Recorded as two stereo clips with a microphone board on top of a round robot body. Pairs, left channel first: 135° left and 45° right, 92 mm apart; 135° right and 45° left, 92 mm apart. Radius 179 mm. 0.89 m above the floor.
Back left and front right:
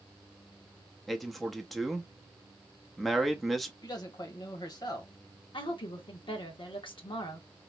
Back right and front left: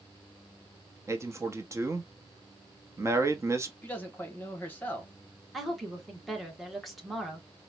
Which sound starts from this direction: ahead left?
A man speaking, at 1.1 s.